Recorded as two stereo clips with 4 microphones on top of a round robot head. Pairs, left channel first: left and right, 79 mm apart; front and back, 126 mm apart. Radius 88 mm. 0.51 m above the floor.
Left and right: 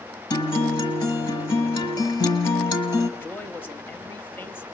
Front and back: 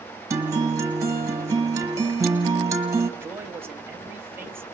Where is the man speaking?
125° left, 1.1 m.